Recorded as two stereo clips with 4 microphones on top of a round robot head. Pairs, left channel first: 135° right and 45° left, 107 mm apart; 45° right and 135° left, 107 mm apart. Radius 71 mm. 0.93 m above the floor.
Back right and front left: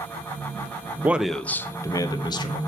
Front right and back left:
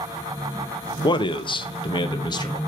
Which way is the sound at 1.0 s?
25° right.